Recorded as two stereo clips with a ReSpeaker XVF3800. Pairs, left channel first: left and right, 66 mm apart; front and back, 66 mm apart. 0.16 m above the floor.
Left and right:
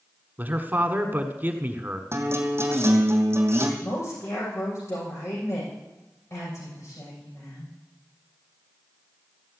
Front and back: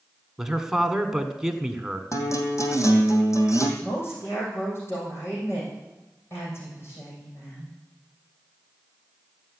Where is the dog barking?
No dog barking in this recording.